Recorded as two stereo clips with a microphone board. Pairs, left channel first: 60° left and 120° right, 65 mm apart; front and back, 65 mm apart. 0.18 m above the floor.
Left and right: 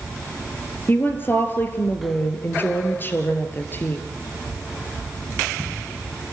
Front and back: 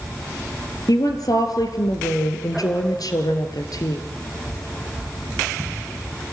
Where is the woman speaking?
5° left, 2.5 m.